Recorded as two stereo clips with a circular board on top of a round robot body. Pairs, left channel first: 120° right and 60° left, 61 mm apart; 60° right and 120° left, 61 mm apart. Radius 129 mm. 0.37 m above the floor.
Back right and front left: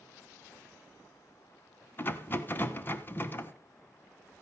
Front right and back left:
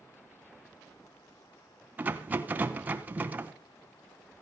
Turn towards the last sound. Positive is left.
turn(degrees=-175)